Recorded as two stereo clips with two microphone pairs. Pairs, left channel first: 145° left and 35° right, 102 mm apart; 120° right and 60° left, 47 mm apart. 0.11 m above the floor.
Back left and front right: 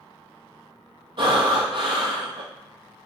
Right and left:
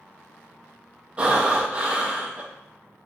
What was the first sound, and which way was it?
Breathing, straight ahead.